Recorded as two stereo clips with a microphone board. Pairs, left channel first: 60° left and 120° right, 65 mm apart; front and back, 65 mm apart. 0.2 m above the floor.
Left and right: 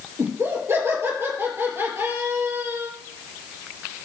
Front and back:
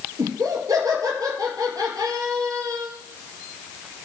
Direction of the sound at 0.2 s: 165° right.